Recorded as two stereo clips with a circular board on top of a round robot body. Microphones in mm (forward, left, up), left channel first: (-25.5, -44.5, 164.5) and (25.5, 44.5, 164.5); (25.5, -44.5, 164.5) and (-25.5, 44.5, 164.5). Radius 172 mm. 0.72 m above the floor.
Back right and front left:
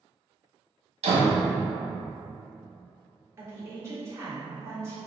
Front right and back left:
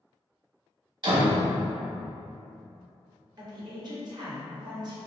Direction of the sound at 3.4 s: 110° left.